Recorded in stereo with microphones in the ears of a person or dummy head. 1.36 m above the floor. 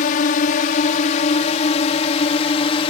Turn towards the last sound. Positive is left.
turn(degrees=25)  # may be behind; listen again after turning